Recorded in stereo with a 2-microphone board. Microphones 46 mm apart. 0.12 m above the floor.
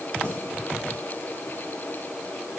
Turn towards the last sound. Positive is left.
turn(degrees=80)